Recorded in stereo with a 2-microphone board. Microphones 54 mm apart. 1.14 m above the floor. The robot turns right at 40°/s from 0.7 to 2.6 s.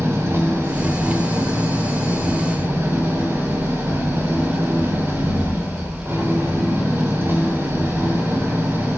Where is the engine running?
125° right, 3.5 m; by 9.0 s 45° right, 3.5 m.